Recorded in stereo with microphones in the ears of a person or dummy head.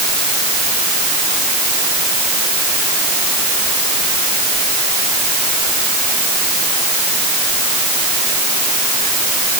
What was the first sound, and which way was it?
Only background noise.